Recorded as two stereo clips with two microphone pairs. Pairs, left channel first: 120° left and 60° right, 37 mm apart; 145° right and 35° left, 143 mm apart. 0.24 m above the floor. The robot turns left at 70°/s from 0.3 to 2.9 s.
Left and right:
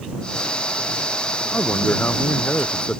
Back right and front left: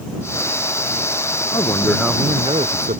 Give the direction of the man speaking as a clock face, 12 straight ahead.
7 o'clock.